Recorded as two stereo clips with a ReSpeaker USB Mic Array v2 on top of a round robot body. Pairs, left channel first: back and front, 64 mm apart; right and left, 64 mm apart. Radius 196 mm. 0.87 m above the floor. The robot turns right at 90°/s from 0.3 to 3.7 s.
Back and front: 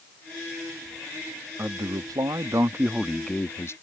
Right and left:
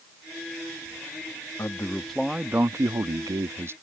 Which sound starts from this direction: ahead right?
A man speaking, at 1.6 s.